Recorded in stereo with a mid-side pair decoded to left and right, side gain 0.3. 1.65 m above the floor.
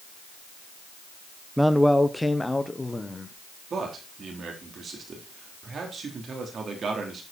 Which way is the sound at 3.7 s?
65° right.